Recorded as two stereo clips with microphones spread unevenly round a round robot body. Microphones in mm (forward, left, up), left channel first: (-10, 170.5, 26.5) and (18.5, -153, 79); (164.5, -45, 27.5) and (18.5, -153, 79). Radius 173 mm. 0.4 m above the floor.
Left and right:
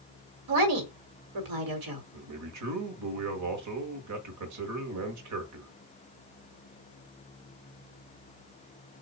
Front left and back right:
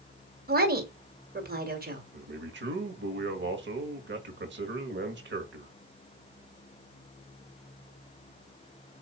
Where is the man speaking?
125° right, 1.8 m.